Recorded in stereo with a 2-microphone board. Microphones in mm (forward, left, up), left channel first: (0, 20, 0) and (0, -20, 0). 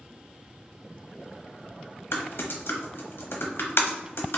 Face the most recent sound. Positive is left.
turn(degrees=75)  # may be behind; listen again after turning